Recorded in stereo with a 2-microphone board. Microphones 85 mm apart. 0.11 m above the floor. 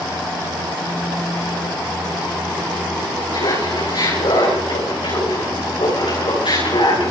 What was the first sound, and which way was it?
Laughter, 80° left.